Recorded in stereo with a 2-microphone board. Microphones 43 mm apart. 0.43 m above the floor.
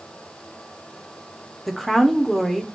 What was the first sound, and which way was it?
A woman speaking, centre (ahead or behind).